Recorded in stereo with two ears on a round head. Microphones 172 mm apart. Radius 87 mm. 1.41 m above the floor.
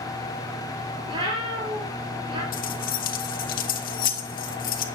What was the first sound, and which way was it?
A cat meowing, 25° right (ahead or behind).